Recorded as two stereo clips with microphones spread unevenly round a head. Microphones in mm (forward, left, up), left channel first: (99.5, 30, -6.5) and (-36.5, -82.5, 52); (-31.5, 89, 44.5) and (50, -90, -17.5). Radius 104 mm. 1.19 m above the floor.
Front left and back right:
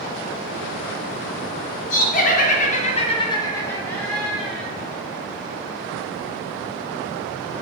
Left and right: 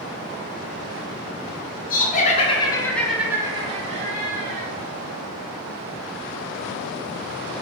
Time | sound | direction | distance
1.9 | laughter | 60° left | 0.9 m